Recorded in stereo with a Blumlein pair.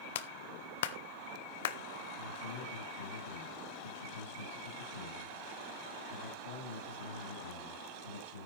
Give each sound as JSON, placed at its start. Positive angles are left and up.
{"t": 0.1, "sound": "a clap", "azimuth_deg": 55, "distance_m": 0.7}
{"t": 2.2, "sound": "a man speaking", "azimuth_deg": 65, "distance_m": 8.5}